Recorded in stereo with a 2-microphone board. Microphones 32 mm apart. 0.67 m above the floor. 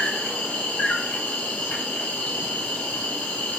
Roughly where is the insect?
Left.